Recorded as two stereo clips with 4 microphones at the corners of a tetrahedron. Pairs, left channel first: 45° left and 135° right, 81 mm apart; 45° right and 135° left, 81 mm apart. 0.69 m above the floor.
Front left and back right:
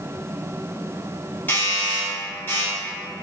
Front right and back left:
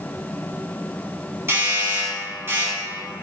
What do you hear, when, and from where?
1.5 s a doorbell: 100° left, 1.9 m